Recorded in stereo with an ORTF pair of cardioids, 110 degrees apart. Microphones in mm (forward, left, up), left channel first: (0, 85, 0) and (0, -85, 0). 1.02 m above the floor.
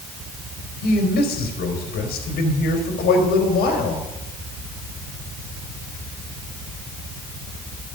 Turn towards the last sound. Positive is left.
turn(degrees=70)